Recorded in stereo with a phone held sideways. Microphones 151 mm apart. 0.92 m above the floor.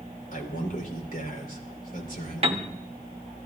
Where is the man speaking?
70° left (ahead or behind), 3.5 m.